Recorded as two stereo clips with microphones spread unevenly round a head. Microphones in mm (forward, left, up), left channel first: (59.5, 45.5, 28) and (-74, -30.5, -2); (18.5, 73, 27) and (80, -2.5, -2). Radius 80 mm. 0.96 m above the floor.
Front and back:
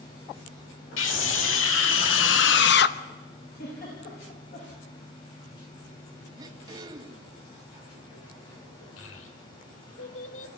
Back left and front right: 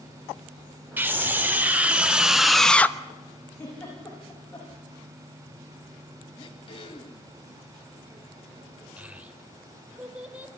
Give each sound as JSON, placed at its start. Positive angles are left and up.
{"t": 1.0, "sound": "a scream", "azimuth_deg": 20, "distance_m": 3.5}
{"t": 3.6, "sound": "a giggle", "azimuth_deg": 60, "distance_m": 9.5}
{"t": 6.4, "sound": "throat clearing", "azimuth_deg": 140, "distance_m": 1.4}
{"t": 9.0, "sound": "a child speaking", "azimuth_deg": 25, "distance_m": 2.5}